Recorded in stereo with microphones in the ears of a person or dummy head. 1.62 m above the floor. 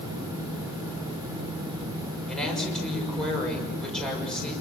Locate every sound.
2.3 s a woman speaking: 5° right (ahead or behind), 6.5 m